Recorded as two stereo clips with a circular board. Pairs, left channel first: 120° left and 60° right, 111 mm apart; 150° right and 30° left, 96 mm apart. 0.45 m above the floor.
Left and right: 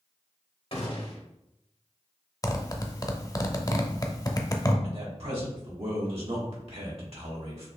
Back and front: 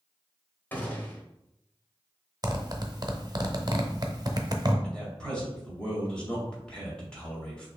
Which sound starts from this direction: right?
A man speaking, at 4.8 s.